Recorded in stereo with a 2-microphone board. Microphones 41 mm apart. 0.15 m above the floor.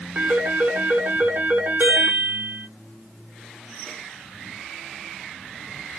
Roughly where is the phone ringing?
Right.